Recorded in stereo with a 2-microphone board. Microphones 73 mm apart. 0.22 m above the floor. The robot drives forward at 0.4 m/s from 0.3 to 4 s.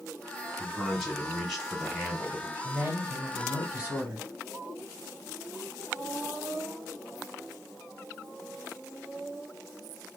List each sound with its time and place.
0.6 s a man speaking: 5° right (ahead or behind), 2 m
2.6 s a man speaking: 25° right (ahead or behind), 1.5 m; by 4.3 s 20° right (ahead or behind), 1.8 m